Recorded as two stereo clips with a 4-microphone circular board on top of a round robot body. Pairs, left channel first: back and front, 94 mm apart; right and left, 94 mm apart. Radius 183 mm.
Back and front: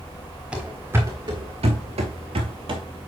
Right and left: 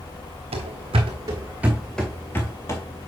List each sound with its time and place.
0.5 s running footsteps: 80° left, 0.7 m; by 2.8 s 35° right, 0.9 m